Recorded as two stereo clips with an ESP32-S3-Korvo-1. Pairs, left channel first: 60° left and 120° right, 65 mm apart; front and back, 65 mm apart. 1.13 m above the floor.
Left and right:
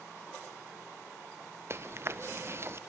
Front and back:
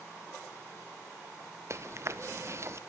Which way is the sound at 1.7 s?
155° right.